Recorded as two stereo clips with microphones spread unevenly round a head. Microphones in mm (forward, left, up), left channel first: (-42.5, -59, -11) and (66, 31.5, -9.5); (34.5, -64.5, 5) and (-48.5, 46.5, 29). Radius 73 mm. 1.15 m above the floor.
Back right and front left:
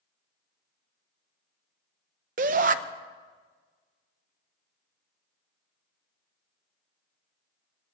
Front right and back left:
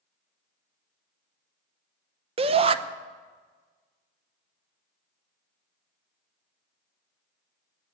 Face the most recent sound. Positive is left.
turn(degrees=75)